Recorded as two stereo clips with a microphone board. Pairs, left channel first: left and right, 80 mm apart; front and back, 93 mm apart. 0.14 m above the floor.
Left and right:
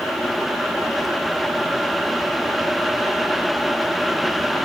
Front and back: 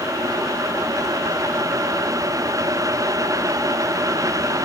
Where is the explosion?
I don't hear an explosion.